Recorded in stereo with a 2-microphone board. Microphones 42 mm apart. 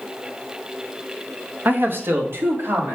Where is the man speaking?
45° right (ahead or behind), 0.8 m; by 3.0 s 75° right (ahead or behind), 2.5 m.